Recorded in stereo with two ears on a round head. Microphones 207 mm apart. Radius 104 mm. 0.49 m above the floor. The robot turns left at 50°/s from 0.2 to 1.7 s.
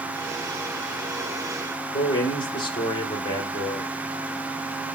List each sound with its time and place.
1.9 s a man speaking: 20° left (ahead or behind), 1.0 m